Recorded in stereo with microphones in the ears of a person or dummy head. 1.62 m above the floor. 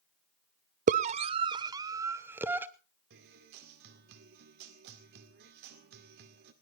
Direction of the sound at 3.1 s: 55° right (ahead or behind).